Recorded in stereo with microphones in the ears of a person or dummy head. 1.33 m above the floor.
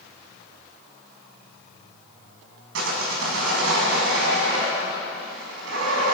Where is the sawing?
70° right (ahead or behind), 5 m.